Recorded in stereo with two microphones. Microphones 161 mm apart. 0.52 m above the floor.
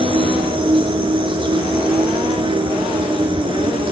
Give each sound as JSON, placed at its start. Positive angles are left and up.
{"t": 0.0, "sound": "an insect", "side_deg": -35, "distance_m": 1.2}